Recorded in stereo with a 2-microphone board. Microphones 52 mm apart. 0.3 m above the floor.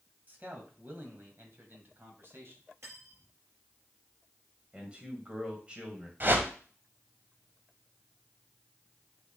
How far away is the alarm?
No alarm in this recording.